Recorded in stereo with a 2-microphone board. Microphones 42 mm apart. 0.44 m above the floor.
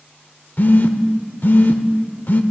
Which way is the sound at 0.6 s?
50° left (ahead or behind).